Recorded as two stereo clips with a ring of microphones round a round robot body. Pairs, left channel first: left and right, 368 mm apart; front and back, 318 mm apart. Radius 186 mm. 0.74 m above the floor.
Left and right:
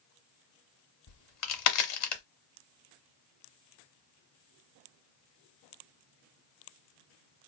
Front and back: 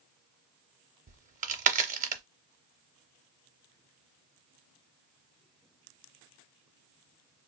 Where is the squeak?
I don't hear a squeak.